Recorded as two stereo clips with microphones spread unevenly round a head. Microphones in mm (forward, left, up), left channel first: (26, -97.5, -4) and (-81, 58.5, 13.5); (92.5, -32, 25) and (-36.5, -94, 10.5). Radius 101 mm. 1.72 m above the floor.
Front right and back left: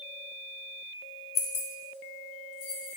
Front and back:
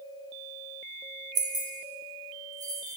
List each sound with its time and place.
1.4 s keys jangling: 100° right, 0.7 m; by 3.0 s 85° right, 2 m